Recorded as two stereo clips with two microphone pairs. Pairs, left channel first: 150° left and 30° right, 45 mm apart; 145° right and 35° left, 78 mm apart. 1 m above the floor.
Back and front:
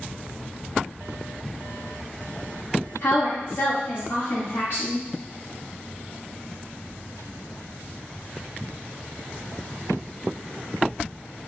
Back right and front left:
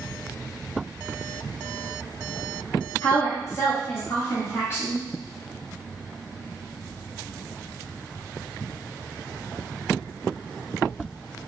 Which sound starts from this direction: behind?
A woman speaking, at 3.0 s.